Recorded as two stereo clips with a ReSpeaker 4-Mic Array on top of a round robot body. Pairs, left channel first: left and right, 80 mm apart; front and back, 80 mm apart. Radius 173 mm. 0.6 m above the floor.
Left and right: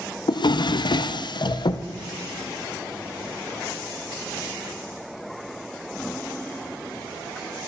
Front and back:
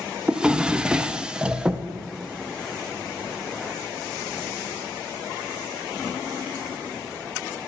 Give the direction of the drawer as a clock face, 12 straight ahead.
9 o'clock.